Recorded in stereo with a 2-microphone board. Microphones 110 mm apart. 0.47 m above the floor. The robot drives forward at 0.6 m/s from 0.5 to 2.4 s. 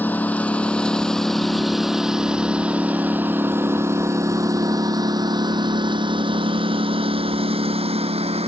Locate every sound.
0.0 s a lawn mower: 15° left (ahead or behind); by 8.5 s 65° right (ahead or behind)